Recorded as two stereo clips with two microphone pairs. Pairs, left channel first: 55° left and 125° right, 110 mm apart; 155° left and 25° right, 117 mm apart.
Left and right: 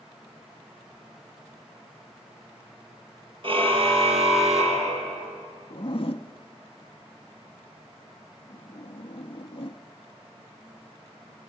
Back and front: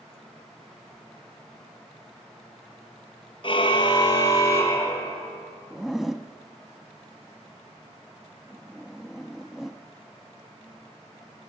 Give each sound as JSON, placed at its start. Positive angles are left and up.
{"t": 3.4, "sound": "a car horn", "azimuth_deg": -160, "distance_m": 3.0}
{"t": 5.7, "sound": "a zipper", "azimuth_deg": 65, "distance_m": 0.7}